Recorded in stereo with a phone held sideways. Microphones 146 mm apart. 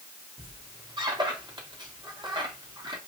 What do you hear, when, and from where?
0.4 s a squeak: 30° right (ahead or behind), 2 m